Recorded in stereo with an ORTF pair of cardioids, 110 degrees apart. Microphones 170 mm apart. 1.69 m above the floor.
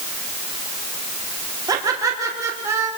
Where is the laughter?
20° right, 4 m; by 2.9 s 15° right, 4.5 m.